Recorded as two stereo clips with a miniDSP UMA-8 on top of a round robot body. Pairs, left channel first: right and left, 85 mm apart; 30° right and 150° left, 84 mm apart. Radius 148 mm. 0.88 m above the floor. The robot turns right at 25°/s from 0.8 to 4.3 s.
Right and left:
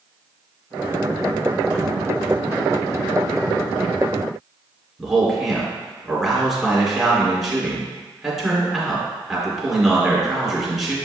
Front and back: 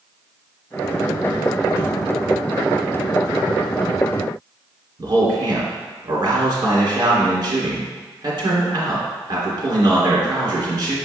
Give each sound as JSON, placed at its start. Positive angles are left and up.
{"t": 5.0, "sound": "a man speaking", "azimuth_deg": 180, "distance_m": 2.5}